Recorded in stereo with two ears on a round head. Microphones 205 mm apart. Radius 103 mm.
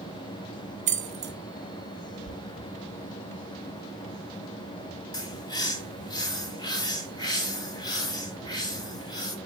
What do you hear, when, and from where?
0.9 s keys jangling: 30° right (ahead or behind), 1.7 m
2.2 s knocking: 60° left (ahead or behind), 3.5 m
5.1 s a bird: 20° left (ahead or behind), 1.2 m